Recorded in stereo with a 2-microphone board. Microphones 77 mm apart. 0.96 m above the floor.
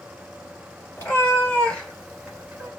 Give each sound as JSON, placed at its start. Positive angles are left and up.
{"t": 1.0, "sound": "a cat meowing", "side_deg": 30, "distance_m": 1.7}